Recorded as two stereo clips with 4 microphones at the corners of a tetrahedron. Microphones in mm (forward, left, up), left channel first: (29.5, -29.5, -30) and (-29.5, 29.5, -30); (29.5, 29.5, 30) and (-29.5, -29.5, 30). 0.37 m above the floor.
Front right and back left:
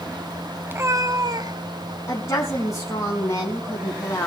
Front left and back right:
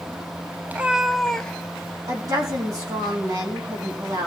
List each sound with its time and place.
0.7 s a cat meowing: 175° left, 0.6 m; by 2.0 s 115° left, 1.4 m
2.1 s a woman speaking: 95° right, 3.5 m